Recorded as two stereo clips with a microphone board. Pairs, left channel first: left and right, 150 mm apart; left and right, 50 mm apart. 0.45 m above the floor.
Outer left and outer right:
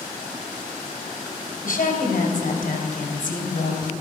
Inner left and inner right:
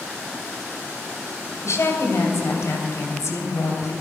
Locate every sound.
1.6 s a woman speaking: 65° left (ahead or behind), 2.5 m